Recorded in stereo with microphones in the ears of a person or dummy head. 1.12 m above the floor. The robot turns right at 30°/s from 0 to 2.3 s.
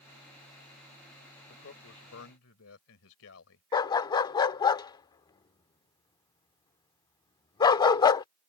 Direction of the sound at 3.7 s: 30° left (ahead or behind).